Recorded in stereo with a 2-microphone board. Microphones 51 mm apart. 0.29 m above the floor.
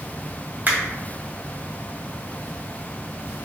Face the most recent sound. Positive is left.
turn(degrees=-35)  # may be behind; listen again after turning